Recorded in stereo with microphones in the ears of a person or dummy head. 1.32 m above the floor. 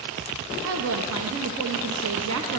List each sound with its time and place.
0.6 s a woman speaking: 80° right, 1.2 m